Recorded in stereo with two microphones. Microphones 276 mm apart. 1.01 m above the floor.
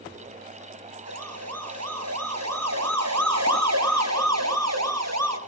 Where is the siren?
65° right (ahead or behind), 9 m; by 5.4 s 70° right (ahead or behind), 12 m.